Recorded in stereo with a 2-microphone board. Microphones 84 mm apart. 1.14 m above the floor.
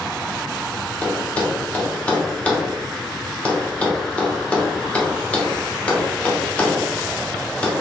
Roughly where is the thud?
Centre.